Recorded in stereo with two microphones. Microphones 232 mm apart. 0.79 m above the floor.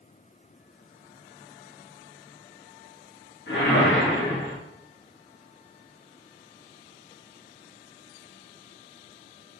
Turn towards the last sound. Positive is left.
turn(degrees=60)  # may be behind; listen again after turning